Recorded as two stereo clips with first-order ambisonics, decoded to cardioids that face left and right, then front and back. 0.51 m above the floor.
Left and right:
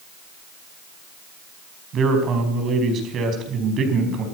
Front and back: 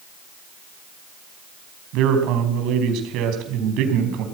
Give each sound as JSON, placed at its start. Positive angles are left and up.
{"t": 1.9, "sound": "a man speaking", "azimuth_deg": -145, "distance_m": 4.5}